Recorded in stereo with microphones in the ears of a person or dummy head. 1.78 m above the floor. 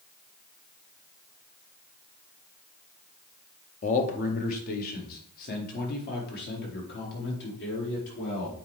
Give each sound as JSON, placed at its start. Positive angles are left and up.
{"t": 3.8, "sound": "a man speaking", "side_deg": 40, "distance_m": 1.1}